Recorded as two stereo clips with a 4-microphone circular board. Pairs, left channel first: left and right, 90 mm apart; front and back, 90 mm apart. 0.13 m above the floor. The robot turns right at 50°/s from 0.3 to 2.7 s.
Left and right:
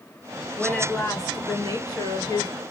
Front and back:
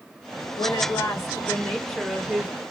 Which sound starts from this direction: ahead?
A woman speaking, at 0.6 s.